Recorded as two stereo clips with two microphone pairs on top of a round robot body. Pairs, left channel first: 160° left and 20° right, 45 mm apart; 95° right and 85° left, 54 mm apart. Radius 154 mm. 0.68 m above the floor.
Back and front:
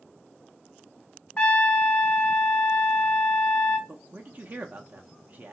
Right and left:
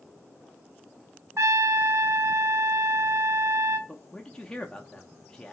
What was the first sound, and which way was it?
A trumpet, 115° left.